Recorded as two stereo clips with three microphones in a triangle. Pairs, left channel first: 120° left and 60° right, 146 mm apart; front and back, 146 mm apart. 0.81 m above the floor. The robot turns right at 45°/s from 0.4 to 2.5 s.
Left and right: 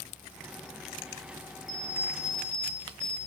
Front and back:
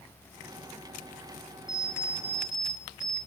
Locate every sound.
1.7 s an alarm clock: 30° left, 4.5 m; by 3.2 s 65° left, 4.5 m